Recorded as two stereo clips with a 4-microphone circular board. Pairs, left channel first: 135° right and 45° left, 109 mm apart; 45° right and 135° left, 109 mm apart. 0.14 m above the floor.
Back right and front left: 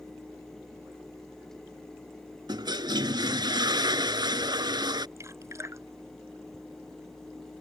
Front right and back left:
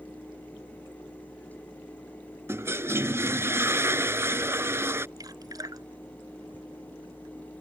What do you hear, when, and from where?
2.5 s a toilet flushing: 75° left
5.2 s dripping: 95° left